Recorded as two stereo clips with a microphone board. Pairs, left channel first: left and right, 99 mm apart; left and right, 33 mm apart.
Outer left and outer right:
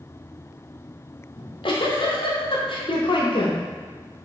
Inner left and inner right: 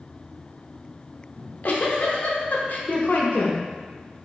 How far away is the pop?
No pop in this recording.